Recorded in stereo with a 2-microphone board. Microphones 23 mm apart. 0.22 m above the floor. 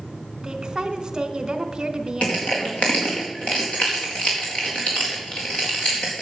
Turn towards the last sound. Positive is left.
turn(degrees=55)  # may be behind; listen again after turning